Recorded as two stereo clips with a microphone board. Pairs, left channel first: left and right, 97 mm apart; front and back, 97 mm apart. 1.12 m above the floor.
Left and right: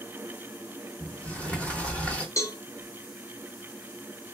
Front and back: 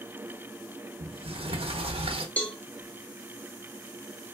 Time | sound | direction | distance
1.0 | a sliding door | 165° left | 0.9 m
2.4 | a cowbell | 70° left | 0.9 m